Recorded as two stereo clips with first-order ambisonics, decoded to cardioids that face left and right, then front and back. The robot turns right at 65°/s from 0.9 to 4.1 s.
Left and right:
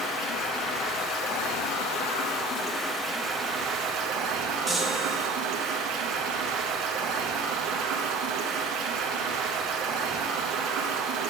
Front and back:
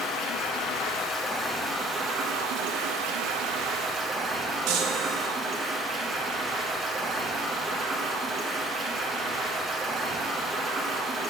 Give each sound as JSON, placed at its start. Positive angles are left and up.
{"t": 0.0, "sound": "running water", "azimuth_deg": 40, "distance_m": 1.8}
{"t": 4.7, "sound": "a chime", "azimuth_deg": 180, "distance_m": 0.9}